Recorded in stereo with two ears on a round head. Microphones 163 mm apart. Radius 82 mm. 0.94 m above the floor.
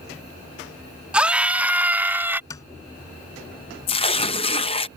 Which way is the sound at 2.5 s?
20° left (ahead or behind).